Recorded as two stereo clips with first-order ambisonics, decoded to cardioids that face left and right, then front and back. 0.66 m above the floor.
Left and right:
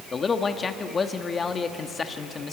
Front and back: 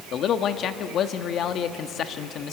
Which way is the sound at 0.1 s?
25° left.